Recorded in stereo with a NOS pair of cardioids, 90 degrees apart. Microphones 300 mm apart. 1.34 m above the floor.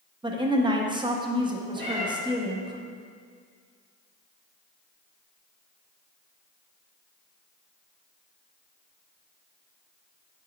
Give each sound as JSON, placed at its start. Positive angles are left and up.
{"t": 0.2, "sound": "a woman speaking", "azimuth_deg": -15, "distance_m": 0.6}
{"t": 1.8, "sound": "a cat meowing", "azimuth_deg": -40, "distance_m": 1.8}